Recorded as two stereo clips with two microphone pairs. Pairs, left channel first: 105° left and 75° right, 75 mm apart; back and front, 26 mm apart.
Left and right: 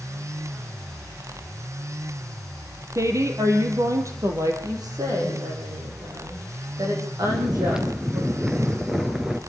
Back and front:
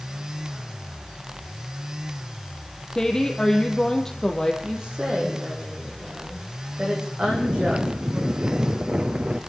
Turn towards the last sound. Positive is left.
turn(degrees=5)